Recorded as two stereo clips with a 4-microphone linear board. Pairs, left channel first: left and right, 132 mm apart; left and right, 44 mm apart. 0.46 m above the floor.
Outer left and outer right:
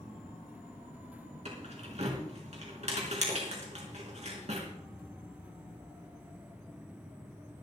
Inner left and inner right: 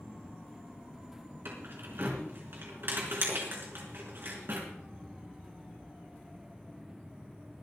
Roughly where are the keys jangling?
Right.